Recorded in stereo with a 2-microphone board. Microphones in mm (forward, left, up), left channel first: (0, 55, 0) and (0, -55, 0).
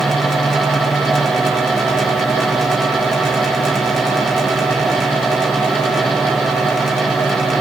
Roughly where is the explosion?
I don't hear an explosion.